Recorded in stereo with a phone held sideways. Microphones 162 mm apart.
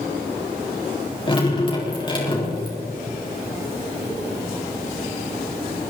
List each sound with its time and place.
1.3 s dripping: 30° left (ahead or behind), 4 m